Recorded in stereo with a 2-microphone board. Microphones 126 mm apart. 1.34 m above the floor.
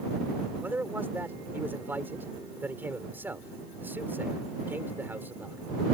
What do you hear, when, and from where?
0.6 s a man speaking: 15° right (ahead or behind)